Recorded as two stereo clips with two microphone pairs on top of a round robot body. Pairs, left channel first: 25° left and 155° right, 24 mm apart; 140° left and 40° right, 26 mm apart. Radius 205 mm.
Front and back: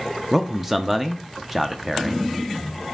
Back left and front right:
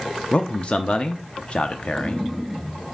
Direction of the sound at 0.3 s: 120° left.